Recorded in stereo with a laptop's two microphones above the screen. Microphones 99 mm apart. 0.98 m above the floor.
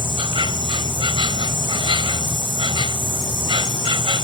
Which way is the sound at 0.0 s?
60° right (ahead or behind).